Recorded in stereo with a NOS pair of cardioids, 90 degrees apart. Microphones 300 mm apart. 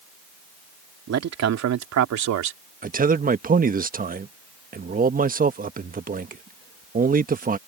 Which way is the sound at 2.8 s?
30° right.